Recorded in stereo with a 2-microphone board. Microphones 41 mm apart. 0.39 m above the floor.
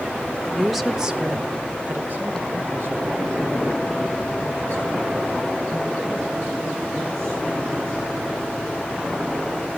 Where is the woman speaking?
10° left (ahead or behind), 1.0 m; by 8.0 s 70° right (ahead or behind), 6 m.